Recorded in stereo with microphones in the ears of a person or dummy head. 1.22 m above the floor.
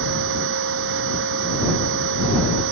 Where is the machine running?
65° right (ahead or behind).